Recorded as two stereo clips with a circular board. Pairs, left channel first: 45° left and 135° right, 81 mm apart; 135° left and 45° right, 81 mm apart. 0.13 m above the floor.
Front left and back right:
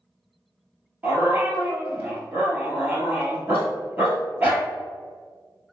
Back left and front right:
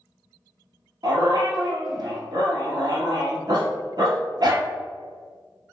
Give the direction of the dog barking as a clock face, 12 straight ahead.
2 o'clock.